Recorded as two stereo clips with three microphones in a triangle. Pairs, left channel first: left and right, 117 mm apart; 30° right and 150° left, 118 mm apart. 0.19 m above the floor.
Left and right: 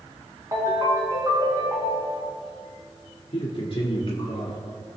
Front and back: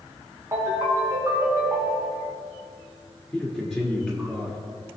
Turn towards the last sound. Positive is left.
turn(degrees=55)